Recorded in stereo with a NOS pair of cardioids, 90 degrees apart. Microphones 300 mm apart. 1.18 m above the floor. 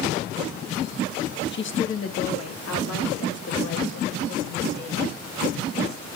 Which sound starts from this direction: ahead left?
A woman speaking, at 1.5 s.